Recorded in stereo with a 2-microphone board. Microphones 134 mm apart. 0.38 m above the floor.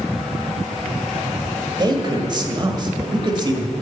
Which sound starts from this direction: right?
A man speaking, at 1.8 s.